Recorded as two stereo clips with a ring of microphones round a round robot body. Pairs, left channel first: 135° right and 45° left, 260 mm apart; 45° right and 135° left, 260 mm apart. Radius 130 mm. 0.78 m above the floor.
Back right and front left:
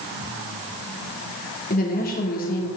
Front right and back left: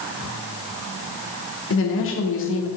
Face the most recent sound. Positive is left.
turn(degrees=-80)